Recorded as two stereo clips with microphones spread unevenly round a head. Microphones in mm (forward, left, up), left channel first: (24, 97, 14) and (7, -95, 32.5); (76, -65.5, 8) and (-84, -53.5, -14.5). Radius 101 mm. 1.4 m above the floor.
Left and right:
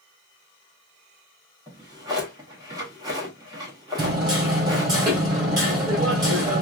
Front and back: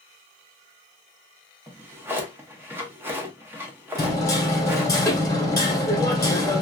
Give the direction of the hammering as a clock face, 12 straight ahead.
2 o'clock.